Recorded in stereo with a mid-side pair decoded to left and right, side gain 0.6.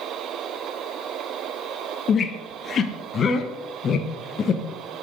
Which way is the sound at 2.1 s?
40° left.